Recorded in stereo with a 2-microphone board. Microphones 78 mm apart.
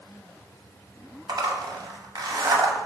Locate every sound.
1.3 s a zipper: 60° right (ahead or behind), 0.7 m